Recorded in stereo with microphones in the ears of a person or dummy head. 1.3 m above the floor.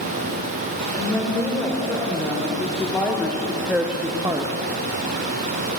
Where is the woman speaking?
10° left (ahead or behind), 5 m; by 4.5 s 30° right (ahead or behind), 0.9 m.